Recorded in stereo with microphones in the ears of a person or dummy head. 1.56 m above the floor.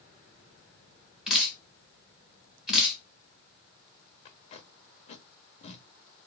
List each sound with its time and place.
1.3 s dripping: centre (ahead or behind), 1.2 m
4.2 s tape being pulled: 40° left (ahead or behind), 1.0 m